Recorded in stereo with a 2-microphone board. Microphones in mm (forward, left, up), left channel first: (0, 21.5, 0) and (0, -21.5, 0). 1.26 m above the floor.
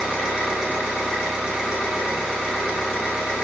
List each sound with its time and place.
0.0 s an engine running: 25° right (ahead or behind), 1.3 m